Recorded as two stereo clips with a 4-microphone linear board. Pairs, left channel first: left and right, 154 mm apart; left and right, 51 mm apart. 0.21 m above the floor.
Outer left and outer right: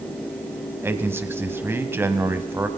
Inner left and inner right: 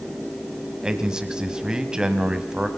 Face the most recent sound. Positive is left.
turn(degrees=-15)  # may be behind; listen again after turning